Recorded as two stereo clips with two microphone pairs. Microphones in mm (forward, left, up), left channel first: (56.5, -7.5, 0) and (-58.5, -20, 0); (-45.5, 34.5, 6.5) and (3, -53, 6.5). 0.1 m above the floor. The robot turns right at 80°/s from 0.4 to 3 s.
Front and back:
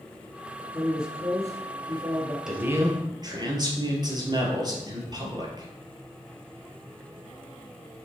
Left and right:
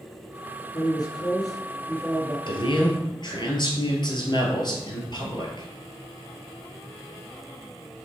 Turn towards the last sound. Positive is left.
turn(degrees=145)